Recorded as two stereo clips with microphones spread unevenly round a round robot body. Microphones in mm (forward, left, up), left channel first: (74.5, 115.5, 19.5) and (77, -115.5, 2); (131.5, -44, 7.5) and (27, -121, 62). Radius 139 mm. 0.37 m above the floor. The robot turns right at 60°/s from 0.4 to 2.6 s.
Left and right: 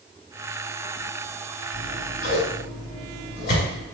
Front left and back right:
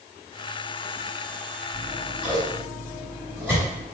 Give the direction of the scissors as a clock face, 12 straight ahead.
10 o'clock.